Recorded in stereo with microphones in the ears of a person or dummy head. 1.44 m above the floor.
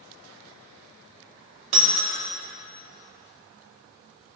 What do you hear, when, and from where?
1.7 s breaking glass: 35° right (ahead or behind), 3 m